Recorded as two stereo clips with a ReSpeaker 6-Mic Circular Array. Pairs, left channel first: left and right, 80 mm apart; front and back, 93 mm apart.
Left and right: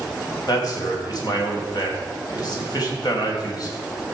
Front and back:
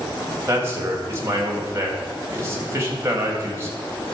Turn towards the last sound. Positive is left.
turn(degrees=120)